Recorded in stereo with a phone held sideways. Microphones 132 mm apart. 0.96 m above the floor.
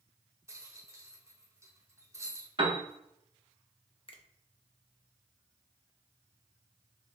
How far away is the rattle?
About 0.7 m.